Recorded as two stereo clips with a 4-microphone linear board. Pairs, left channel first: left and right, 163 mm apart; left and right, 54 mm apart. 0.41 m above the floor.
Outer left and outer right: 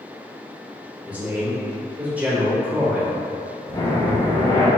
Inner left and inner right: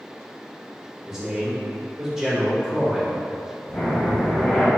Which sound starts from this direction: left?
Breathing, at 3.7 s.